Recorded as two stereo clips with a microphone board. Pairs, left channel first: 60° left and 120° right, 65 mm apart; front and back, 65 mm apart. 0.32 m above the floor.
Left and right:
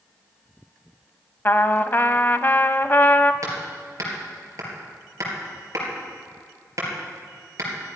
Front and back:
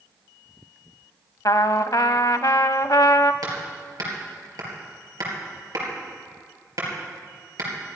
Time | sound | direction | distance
1.4 | a trumpet | 10° left | 0.5 m
3.4 | hammering | 155° right | 4 m